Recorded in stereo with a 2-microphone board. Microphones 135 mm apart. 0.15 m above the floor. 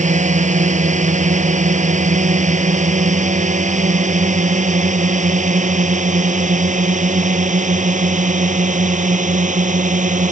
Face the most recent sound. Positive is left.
turn(degrees=-70)  # may be behind; listen again after turning